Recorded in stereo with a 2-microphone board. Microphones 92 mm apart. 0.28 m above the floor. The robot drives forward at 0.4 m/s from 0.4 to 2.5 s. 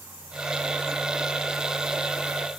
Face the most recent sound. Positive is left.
No sound to turn to.